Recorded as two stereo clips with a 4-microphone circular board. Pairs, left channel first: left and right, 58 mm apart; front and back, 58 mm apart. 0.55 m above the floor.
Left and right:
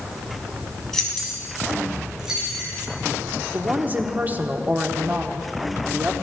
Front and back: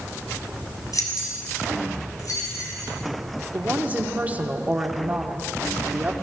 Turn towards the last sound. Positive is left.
turn(degrees=-130)